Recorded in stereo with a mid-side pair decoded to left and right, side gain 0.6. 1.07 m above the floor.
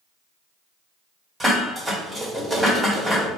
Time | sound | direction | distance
1.4 | dishes clattering | 10° right | 1.6 m